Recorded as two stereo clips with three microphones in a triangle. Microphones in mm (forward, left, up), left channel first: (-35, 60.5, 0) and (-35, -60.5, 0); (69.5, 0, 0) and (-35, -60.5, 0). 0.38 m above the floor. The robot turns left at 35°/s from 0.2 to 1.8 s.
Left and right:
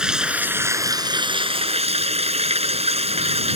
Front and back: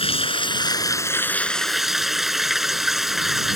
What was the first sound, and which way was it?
Running water, 5° right.